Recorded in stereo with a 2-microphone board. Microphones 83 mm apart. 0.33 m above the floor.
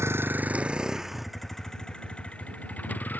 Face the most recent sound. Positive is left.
turn(degrees=20)  # may be behind; listen again after turning